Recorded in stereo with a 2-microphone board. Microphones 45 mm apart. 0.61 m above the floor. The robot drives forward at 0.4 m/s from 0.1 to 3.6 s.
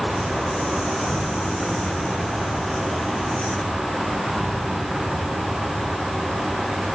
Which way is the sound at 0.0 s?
Centre (ahead or behind).